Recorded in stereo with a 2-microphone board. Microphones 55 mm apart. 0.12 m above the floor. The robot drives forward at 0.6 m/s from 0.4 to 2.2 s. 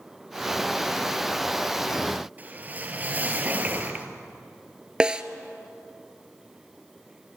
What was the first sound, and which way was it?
A whoosh, 30° right (ahead or behind).